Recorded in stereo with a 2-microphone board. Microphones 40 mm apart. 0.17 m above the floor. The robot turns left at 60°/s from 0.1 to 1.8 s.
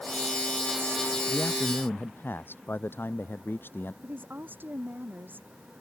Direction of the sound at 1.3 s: 105° left.